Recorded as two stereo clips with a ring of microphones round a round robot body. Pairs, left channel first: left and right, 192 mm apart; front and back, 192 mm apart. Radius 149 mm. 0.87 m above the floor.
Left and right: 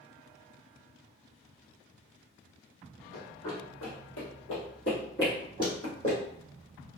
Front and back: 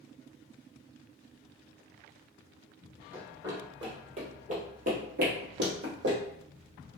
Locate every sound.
3.1 s running footsteps: 105° left, 1.7 m; by 6.2 s 160° left, 2.0 m